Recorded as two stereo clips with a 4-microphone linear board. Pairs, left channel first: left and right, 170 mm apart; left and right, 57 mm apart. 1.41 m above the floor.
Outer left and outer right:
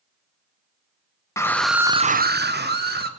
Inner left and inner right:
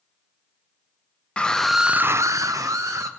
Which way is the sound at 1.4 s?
15° left (ahead or behind).